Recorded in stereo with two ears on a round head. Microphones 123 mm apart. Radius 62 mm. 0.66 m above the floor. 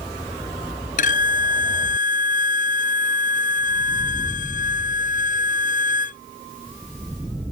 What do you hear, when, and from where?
1.0 s a violin: 70° left (ahead or behind)